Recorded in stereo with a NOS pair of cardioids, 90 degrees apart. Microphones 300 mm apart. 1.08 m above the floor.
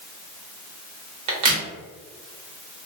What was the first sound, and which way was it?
A crack, 65° right.